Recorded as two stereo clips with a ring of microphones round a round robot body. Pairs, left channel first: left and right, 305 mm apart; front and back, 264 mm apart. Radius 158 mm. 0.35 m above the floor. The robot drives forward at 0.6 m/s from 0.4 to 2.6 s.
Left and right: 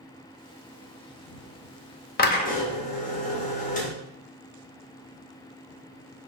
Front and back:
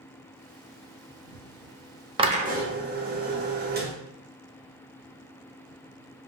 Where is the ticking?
I don't hear ticking.